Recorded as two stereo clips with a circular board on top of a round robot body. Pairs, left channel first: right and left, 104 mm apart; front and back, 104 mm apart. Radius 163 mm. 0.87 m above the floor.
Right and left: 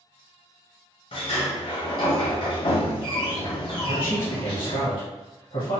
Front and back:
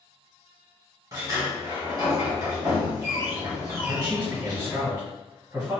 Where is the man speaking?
110° right, 1.9 m.